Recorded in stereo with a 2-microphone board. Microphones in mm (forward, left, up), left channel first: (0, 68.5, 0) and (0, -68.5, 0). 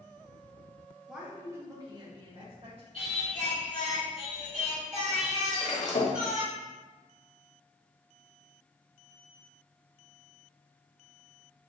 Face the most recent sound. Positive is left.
turn(degrees=60)  # may be behind; listen again after turning